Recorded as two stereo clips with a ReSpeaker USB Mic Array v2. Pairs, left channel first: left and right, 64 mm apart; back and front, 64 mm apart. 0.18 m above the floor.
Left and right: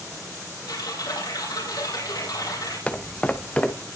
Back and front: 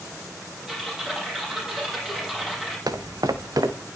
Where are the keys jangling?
I don't hear keys jangling.